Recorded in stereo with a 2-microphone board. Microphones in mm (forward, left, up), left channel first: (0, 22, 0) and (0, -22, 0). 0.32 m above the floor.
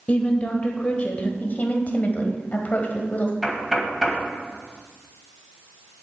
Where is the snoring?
I don't hear snoring.